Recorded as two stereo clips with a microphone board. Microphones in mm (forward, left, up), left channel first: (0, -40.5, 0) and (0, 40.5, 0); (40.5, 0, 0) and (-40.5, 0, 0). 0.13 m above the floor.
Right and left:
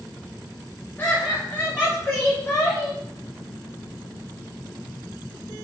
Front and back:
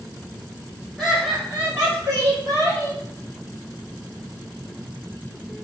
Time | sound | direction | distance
1.0 | laughter | 90° right | 1.5 m